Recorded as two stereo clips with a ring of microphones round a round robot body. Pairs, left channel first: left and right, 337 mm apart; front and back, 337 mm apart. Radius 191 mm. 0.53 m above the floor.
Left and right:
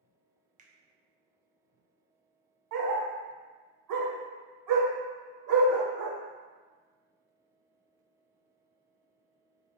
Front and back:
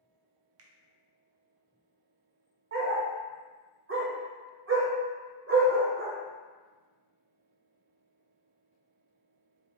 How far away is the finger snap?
About 0.5 m.